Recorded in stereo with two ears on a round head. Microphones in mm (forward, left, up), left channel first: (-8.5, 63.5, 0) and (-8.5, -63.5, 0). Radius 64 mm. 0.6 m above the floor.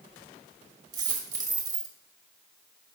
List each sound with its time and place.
0.9 s a dropped coin: 30° right (ahead or behind), 1.4 m